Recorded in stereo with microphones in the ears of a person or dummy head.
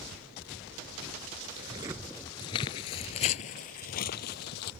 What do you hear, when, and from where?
1.6 s footsteps: 20° right (ahead or behind); by 4.7 s 55° left (ahead or behind)